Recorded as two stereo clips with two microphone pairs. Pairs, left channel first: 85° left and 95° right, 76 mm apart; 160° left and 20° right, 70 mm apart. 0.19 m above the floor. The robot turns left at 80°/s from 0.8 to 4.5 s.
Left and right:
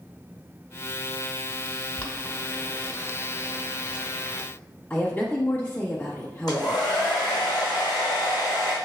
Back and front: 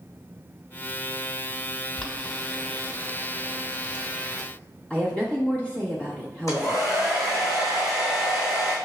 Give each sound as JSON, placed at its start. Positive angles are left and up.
{"t": 2.0, "sound": "boiling", "azimuth_deg": 115, "distance_m": 1.1}
{"t": 4.9, "sound": "a woman speaking", "azimuth_deg": 110, "distance_m": 1.1}
{"t": 6.5, "sound": "a hair dryer", "azimuth_deg": 115, "distance_m": 2.0}